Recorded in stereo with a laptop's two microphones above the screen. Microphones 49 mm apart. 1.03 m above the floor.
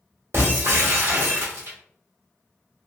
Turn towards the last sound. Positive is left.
turn(degrees=-70)  # may be behind; listen again after turning